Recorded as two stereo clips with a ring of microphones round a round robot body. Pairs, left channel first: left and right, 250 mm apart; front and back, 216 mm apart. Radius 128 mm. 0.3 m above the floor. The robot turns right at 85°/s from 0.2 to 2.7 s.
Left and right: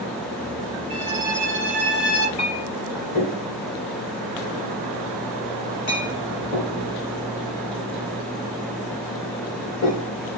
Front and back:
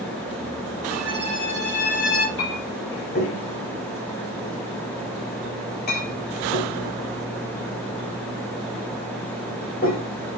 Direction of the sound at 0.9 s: 100° right.